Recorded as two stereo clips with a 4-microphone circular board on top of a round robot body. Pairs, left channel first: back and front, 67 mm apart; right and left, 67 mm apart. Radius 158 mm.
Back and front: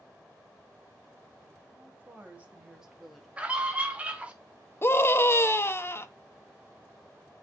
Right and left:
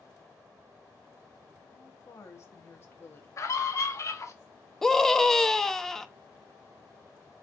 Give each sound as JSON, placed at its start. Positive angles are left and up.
{"t": 1.7, "sound": "a woman speaking", "azimuth_deg": -50, "distance_m": 1.9}
{"t": 3.4, "sound": "a scream", "azimuth_deg": -65, "distance_m": 1.5}
{"t": 4.8, "sound": "a scream", "azimuth_deg": -170, "distance_m": 0.8}